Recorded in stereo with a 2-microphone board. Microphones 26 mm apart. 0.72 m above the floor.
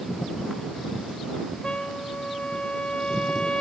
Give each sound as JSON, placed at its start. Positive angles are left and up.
{"t": 1.6, "sound": "a trumpet", "side_deg": 40}